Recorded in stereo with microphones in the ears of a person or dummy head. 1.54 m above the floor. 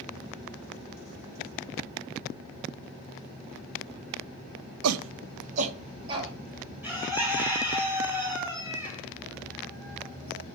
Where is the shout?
75° right (ahead or behind), 0.6 m; by 6.3 s 25° right (ahead or behind), 1.7 m.